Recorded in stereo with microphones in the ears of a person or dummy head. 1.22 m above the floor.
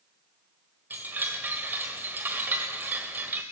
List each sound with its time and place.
0.9 s a chime: 10° right (ahead or behind), 1.5 m